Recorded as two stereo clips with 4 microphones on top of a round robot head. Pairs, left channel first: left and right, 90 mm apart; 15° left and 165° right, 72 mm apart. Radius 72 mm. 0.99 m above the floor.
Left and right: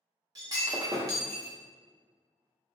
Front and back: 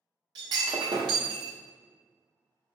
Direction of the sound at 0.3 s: 140° right.